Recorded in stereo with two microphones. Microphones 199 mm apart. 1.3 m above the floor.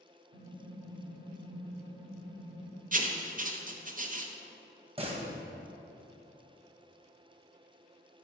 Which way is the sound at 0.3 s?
60° left (ahead or behind).